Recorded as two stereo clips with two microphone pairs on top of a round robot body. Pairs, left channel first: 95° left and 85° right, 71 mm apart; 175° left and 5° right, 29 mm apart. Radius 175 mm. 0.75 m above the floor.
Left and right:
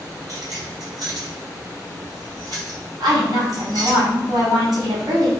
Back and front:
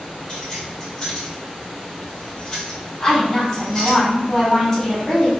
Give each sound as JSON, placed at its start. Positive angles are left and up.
{"t": 0.3, "sound": "keys jangling", "azimuth_deg": -120, "distance_m": 1.8}
{"t": 3.0, "sound": "a woman speaking", "azimuth_deg": -105, "distance_m": 2.5}